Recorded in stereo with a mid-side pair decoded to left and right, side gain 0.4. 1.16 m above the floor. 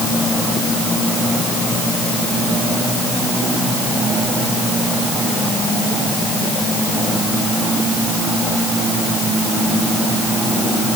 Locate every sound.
Only background noise.